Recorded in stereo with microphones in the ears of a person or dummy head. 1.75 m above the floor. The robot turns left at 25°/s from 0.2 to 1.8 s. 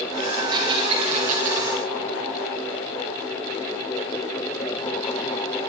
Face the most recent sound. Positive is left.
turn(degrees=-55)  # may be behind; listen again after turning